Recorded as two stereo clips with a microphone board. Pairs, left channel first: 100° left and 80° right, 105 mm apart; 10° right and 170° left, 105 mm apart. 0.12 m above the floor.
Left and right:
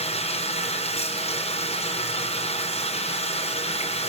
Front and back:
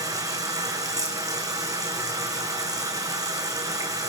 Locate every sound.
0.0 s running water: 115° left, 4 m